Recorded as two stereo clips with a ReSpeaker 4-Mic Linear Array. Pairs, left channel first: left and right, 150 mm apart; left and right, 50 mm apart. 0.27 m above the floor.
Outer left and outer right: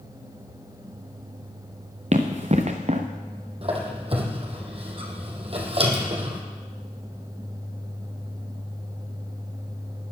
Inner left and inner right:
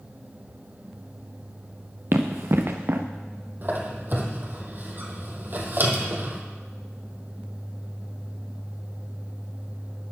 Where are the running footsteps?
50° right (ahead or behind), 1.5 m.